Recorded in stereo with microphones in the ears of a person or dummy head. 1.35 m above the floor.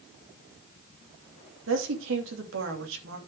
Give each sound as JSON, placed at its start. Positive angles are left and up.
{"t": 1.7, "sound": "a woman speaking", "side_deg": -70, "distance_m": 3.0}